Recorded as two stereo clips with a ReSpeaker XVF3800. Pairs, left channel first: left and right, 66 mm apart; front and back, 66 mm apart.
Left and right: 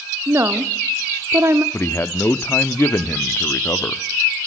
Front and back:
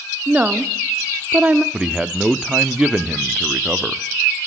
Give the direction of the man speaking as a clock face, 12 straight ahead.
8 o'clock.